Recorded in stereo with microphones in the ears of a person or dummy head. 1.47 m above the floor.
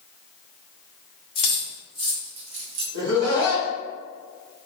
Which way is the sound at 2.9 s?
70° right (ahead or behind).